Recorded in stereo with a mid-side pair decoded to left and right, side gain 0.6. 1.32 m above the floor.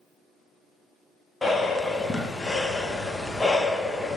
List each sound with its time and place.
1.4 s breathing: 10° left, 0.9 m